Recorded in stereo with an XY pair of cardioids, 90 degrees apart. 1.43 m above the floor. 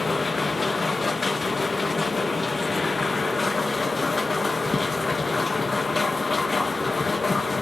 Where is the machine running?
25° left, 1.4 m.